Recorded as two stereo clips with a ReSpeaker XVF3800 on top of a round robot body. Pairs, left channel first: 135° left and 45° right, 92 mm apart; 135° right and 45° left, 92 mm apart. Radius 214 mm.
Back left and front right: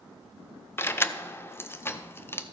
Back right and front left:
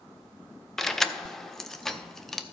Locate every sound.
0.8 s keys jangling: 145° left, 0.9 m